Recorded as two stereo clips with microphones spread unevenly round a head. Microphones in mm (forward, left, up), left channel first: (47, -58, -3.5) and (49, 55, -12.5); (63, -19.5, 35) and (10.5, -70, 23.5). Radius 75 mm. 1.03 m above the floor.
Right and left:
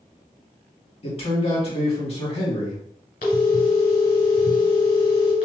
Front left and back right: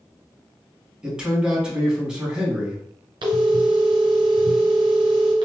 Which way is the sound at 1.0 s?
60° right.